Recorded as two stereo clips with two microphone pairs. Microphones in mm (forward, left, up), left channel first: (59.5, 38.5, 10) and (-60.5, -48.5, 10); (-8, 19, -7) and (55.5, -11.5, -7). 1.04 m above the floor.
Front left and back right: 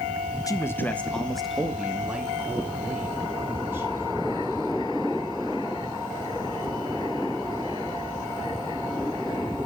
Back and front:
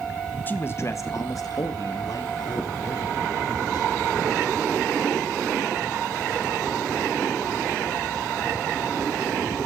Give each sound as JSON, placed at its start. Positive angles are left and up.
{"t": 0.5, "sound": "a man speaking", "azimuth_deg": 95, "distance_m": 1.2}